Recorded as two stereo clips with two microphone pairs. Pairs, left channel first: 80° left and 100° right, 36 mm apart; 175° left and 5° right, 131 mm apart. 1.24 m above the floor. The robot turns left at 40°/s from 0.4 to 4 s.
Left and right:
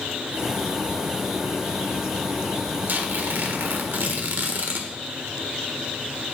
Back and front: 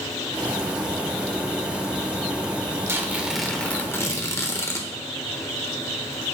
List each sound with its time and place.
2.9 s tearing paper: 75° right, 1.3 m; by 4.9 s 120° right, 1.3 m